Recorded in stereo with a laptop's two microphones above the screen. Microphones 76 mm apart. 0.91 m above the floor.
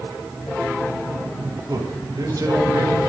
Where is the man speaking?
55° right (ahead or behind), 7.5 m.